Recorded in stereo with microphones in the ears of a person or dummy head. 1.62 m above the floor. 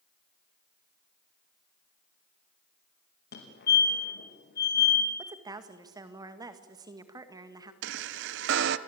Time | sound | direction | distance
3.3 | a fire alarm | 55° left (ahead or behind) | 4.5 m
5.2 | a woman speaking | 20° right (ahead or behind) | 2.0 m
7.8 | a chime | 70° right (ahead or behind) | 1.1 m